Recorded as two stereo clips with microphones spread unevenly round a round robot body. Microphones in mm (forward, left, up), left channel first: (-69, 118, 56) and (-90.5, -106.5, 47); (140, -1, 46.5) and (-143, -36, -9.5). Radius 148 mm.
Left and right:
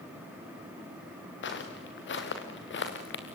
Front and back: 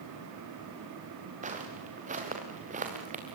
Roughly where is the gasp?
No gasp in this recording.